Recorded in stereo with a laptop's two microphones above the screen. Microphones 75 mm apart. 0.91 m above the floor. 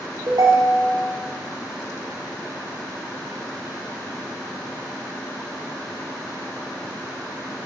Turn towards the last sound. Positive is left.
turn(degrees=-65)  # may be behind; listen again after turning